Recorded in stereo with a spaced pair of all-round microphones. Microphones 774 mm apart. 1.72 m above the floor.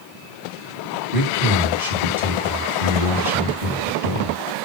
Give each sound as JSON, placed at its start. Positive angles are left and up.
{"t": 1.1, "sound": "a man speaking", "side_deg": -40, "distance_m": 2.5}